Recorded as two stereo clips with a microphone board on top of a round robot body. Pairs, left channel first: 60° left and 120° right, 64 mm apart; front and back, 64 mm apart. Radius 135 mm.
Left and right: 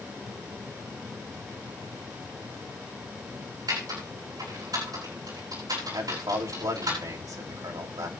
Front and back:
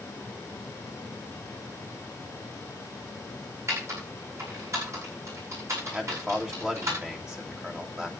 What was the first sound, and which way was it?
Typing on a keyboard, 140° right.